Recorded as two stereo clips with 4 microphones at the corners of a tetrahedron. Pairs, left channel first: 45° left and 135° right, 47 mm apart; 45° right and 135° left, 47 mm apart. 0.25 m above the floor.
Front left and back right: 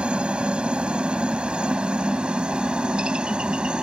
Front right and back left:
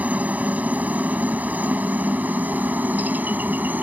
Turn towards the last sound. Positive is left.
turn(degrees=160)